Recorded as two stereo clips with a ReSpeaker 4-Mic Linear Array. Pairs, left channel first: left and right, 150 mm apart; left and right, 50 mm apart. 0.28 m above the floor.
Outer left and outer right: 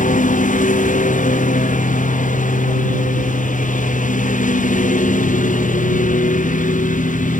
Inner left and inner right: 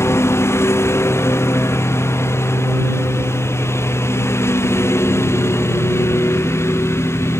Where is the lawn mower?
60° left (ahead or behind).